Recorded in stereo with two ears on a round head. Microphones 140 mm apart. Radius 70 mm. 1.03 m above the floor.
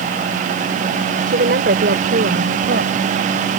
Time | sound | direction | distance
1.3 | a woman speaking | 75° right (ahead or behind) | ?